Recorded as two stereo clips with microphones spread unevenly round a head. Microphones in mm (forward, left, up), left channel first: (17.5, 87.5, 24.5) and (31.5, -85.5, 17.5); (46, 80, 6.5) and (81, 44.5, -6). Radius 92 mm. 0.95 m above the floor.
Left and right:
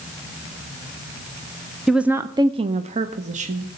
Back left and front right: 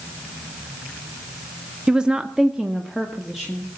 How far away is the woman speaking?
About 0.6 m.